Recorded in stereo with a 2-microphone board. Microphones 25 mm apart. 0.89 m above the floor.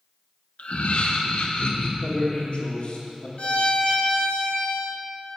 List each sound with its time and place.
0.6 s laughter: 70° left (ahead or behind), 1.0 m; by 1.9 s 50° left (ahead or behind), 1.8 m
2.0 s a man speaking: 60° left (ahead or behind), 2.5 m
3.4 s a violin: 60° left (ahead or behind), 1.3 m